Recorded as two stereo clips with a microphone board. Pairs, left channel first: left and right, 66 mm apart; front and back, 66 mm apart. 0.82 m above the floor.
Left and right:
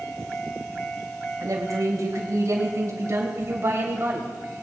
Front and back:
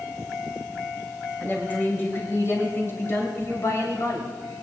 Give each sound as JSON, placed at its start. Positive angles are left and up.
{"t": 1.4, "sound": "a woman speaking", "azimuth_deg": -60, "distance_m": 4.0}